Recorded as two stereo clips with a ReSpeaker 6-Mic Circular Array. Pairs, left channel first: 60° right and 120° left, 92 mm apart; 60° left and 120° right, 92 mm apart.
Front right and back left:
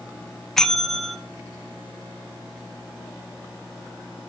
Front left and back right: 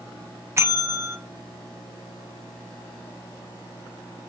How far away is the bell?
About 1.1 m.